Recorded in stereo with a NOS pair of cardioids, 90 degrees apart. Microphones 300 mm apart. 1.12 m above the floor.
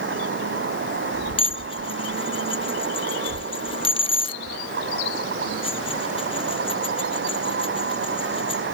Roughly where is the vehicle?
Ahead right.